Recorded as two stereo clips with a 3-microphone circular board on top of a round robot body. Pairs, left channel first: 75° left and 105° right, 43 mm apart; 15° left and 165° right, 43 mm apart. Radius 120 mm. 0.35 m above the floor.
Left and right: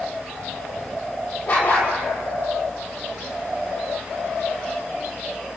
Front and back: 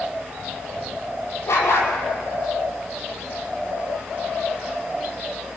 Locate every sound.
1.5 s a dog barking: 30° left, 5.5 m